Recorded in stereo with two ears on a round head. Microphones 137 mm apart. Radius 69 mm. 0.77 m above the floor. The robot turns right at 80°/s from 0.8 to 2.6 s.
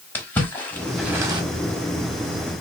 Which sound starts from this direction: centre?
A splash, at 0.1 s.